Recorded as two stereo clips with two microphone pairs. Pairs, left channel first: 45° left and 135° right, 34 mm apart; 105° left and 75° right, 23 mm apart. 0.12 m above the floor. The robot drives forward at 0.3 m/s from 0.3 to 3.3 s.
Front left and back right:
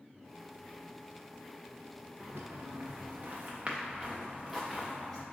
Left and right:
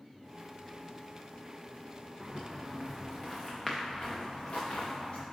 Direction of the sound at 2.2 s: 140° right.